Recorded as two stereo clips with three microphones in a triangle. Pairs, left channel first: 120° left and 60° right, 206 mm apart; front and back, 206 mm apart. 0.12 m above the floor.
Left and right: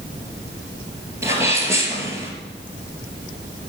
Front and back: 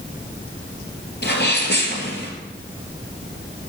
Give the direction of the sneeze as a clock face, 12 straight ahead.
11 o'clock.